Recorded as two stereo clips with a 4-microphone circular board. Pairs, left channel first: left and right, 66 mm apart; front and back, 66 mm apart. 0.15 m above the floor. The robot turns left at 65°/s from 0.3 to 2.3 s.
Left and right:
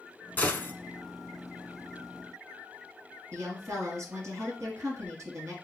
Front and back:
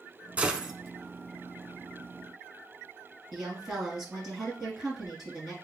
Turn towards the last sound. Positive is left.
turn(degrees=-110)